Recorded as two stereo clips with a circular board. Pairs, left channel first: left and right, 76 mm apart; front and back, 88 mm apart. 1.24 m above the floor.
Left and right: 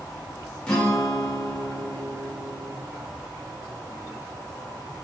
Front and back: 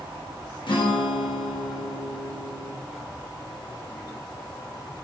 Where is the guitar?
15° left, 0.8 m.